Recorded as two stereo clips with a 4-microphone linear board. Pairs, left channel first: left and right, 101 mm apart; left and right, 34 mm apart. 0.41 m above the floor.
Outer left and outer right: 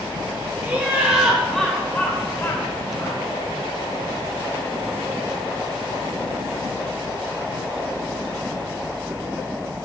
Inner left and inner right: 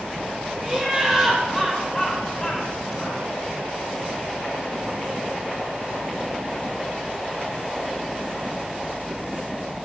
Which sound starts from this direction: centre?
Laughter, at 0.6 s.